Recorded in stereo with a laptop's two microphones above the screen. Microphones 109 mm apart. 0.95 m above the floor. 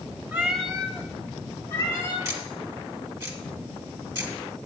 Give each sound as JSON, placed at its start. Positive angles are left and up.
{"t": 0.3, "sound": "a cat meowing", "side_deg": -15, "distance_m": 0.7}
{"t": 2.2, "sound": "ticking", "side_deg": -25, "distance_m": 1.1}